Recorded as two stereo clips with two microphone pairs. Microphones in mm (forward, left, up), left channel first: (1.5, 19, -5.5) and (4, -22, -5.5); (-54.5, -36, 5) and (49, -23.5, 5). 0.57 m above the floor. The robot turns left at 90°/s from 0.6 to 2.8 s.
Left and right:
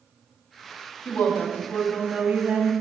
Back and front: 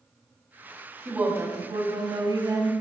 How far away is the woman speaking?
About 1.1 m.